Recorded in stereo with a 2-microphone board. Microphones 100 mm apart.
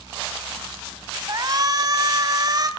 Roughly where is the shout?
Right.